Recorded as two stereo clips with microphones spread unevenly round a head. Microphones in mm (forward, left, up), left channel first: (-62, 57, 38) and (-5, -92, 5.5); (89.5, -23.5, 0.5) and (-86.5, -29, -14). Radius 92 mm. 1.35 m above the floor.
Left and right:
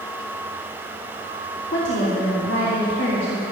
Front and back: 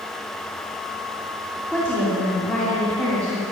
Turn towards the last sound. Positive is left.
turn(degrees=80)